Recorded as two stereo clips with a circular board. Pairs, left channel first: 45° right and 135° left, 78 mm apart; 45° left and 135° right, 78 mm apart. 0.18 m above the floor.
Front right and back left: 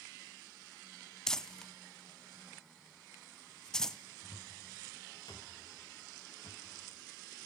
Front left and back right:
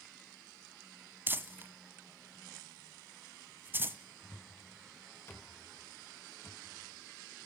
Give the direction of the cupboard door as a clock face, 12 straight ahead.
12 o'clock.